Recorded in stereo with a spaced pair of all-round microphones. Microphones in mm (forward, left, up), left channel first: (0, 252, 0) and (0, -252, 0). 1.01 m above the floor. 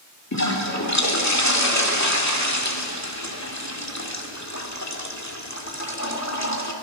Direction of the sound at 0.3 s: 35° left (ahead or behind).